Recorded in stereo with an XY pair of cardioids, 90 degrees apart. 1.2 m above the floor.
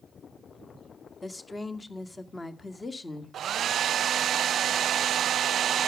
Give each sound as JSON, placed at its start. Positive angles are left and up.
{"t": 1.2, "sound": "a woman speaking", "azimuth_deg": 25, "distance_m": 2.0}
{"t": 3.3, "sound": "a hair dryer", "azimuth_deg": -65, "distance_m": 0.6}